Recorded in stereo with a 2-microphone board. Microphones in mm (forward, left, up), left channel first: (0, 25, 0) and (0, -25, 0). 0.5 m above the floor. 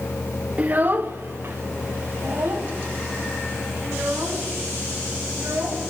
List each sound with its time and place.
0.6 s a child speaking: 25° right (ahead or behind), 0.8 m; by 5.9 s 60° right (ahead or behind), 8 m